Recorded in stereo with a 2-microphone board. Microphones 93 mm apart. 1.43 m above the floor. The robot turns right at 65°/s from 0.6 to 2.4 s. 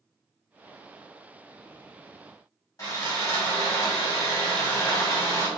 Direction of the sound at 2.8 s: 35° left (ahead or behind).